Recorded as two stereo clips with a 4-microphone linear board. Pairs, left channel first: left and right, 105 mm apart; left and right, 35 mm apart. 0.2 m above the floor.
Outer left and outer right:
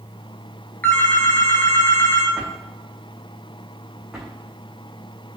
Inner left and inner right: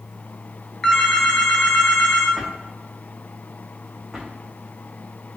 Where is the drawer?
5° right (ahead or behind), 3 m.